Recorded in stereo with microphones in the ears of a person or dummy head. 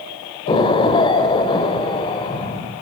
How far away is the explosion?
About 2 m.